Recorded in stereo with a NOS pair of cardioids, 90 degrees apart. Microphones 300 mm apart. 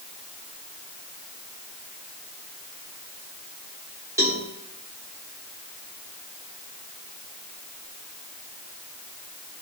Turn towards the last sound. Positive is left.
turn(degrees=-10)